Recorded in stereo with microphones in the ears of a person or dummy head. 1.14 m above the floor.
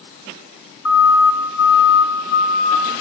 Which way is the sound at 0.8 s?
75° left (ahead or behind).